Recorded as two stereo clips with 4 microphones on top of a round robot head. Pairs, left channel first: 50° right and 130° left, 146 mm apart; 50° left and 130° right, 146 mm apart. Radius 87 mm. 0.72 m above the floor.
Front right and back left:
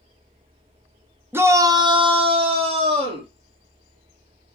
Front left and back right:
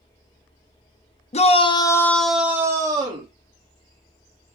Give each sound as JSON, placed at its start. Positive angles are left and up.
{"t": 1.3, "sound": "a shout", "azimuth_deg": 60, "distance_m": 1.0}